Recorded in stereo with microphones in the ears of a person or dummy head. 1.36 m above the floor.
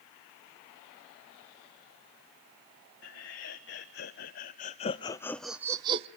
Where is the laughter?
70° left (ahead or behind), 1.6 m; by 6.1 s 30° right (ahead or behind), 0.6 m.